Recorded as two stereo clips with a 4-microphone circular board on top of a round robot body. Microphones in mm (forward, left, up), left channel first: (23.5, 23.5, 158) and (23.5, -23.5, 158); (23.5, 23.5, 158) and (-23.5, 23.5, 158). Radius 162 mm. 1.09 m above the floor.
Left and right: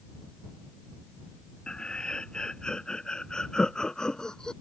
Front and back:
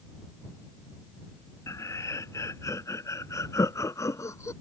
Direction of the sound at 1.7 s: 15° left.